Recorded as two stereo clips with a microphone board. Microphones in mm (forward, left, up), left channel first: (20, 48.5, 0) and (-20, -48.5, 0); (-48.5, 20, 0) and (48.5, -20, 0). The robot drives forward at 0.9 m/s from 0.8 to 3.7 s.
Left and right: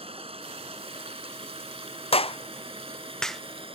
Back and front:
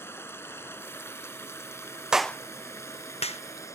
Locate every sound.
0.0 s running water: 135° right; by 3.8 s 140° right
2.1 s a clap: 60° left; by 3.4 s 155° left